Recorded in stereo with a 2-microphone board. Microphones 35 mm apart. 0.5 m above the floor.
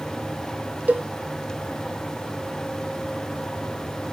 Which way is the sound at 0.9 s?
55° right (ahead or behind).